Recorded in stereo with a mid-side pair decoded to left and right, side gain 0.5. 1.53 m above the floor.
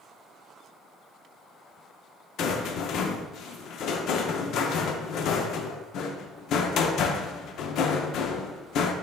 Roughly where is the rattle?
Left.